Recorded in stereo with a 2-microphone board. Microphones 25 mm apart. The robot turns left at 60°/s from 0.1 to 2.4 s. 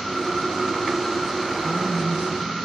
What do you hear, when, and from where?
1.6 s a woman speaking: 55° right, 9.5 m; by 2.4 s 100° right, 9.5 m